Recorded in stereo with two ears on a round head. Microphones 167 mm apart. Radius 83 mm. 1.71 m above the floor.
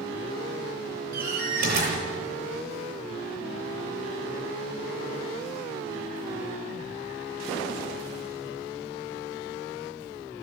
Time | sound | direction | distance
1.1 | a door slam | 55° right (ahead or behind) | 7.5 m